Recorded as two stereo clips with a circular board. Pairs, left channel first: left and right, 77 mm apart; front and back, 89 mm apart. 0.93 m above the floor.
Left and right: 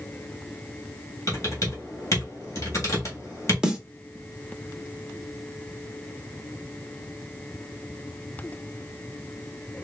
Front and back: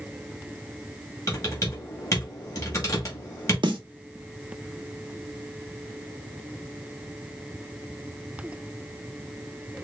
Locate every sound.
1.3 s typing on a keyboard: 45° left, 1.8 m
3.6 s a snare drum: 170° right, 0.8 m